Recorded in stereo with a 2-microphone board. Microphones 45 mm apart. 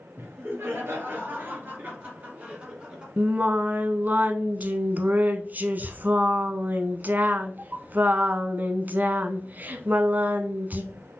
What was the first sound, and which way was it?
Laughter, 60° right (ahead or behind).